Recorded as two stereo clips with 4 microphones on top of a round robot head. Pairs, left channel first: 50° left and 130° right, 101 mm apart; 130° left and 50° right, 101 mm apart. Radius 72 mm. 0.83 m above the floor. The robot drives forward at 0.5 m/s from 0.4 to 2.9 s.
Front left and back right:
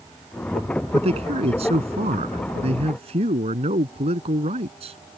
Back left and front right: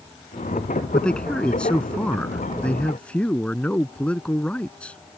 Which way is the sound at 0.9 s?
150° right.